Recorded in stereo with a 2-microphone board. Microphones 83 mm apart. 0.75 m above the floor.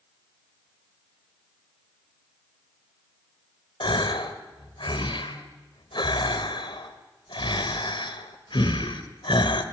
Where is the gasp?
80° left, 1.6 m.